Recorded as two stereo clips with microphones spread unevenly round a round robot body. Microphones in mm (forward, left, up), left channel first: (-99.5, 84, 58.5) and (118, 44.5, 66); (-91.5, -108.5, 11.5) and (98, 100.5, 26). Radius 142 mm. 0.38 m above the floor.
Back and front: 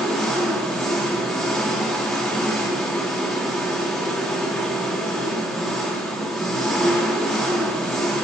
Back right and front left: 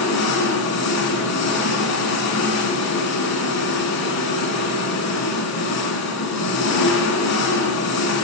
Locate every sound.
0.0 s an engine running: 100° right, 4 m